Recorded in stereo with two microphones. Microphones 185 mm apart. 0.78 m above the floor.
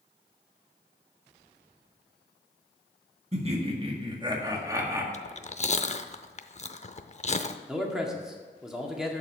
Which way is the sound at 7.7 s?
5° right (ahead or behind).